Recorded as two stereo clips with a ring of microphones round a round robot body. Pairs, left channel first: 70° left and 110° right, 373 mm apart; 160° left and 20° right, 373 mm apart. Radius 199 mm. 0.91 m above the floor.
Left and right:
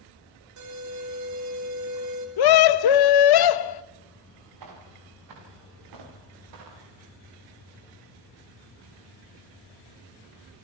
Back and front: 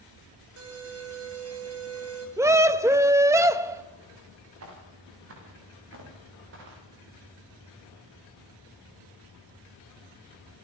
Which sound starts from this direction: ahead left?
A scream, at 2.4 s.